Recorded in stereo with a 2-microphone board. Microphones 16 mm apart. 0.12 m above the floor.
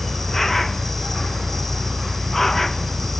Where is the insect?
15° left (ahead or behind).